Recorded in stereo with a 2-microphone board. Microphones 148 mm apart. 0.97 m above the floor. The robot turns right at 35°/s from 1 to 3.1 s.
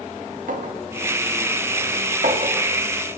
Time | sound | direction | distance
0.5 | a clink | 70° right (ahead or behind) | 1.2 m